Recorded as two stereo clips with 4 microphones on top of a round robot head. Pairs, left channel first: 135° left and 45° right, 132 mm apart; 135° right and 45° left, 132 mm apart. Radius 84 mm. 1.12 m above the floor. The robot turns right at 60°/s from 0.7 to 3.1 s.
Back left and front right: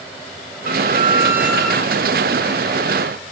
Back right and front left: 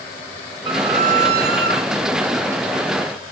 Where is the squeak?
10° right, 4 m; by 1.8 s 55° left, 4 m.